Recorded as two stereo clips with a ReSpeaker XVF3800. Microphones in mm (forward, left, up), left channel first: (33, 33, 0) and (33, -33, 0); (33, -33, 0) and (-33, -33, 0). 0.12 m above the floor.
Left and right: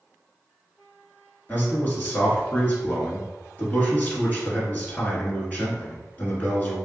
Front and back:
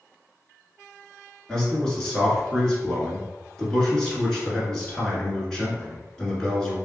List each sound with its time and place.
1.5 s a man speaking: 70° left, 1.3 m